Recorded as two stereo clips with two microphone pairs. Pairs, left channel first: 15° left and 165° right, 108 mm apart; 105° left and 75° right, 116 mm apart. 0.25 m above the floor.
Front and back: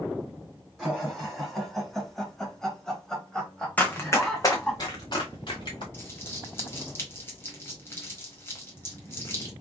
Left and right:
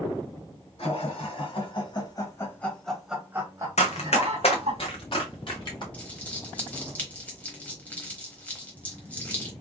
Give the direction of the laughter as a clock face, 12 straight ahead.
8 o'clock.